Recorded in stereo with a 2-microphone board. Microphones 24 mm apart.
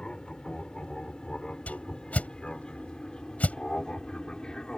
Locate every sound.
0.0 s an aircraft: 35° left (ahead or behind); by 4.8 s 30° left (ahead or behind)
1.7 s a whoosh: 70° left (ahead or behind)